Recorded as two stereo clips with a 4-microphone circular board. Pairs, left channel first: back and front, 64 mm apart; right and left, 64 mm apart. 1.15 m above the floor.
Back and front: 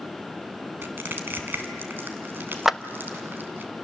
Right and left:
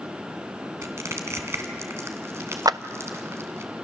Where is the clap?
85° left, 0.5 m.